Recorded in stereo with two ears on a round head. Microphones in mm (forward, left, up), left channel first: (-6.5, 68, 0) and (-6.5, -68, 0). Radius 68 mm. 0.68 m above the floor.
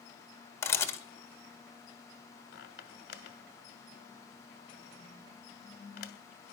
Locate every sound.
0.6 s a camera shutter: 20° left (ahead or behind), 1.6 m
2.5 s a squeak: 70° left (ahead or behind), 1.7 m